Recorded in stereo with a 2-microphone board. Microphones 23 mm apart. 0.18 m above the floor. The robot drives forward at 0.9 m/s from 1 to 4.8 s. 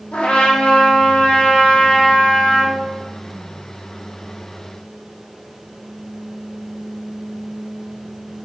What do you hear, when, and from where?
0.1 s a trumpet: 80° left, 3 m; by 2.7 s 55° left (ahead or behind), 3.5 m